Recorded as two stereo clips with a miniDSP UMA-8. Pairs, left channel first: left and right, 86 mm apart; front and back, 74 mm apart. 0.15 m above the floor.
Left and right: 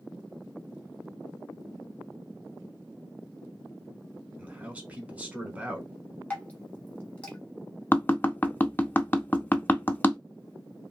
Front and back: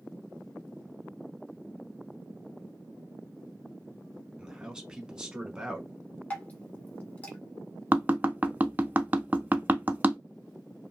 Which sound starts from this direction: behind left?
Tapping, at 7.9 s.